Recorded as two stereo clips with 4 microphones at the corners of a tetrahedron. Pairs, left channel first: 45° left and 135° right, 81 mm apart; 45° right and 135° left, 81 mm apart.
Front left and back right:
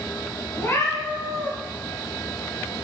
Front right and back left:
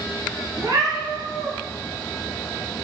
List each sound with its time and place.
0.6 s a cat meowing: 105° left, 1.3 m